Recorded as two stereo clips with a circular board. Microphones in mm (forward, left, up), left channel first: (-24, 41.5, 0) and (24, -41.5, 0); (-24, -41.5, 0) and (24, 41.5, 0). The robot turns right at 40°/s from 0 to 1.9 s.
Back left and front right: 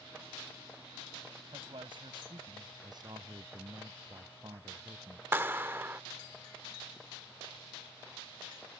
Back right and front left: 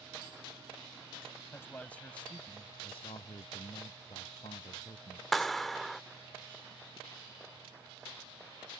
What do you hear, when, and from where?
1.5 s a man speaking: 60° right; by 2.7 s 45° right
2.8 s a man speaking: 105° right
5.3 s a clap: 35° right